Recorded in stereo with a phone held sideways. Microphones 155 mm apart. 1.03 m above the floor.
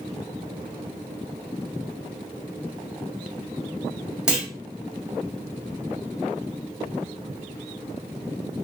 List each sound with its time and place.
4.3 s a clunk: 5° right (ahead or behind), 1.5 m